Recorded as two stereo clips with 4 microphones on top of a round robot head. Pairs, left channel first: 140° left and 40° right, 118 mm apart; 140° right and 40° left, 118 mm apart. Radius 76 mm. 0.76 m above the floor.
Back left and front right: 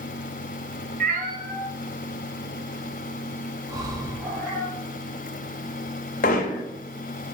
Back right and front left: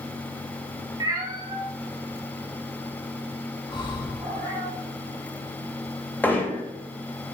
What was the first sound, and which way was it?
A cat meowing, 20° right.